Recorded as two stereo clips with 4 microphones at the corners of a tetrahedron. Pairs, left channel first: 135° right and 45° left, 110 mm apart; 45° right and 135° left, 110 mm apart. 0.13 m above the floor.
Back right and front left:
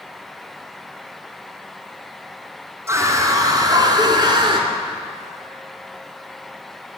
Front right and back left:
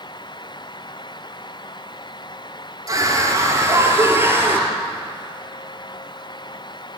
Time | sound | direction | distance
2.9 | a scream | 100° left | 2 m